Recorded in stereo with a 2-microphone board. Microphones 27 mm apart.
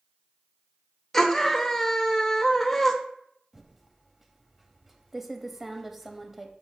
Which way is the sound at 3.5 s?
10° right (ahead or behind).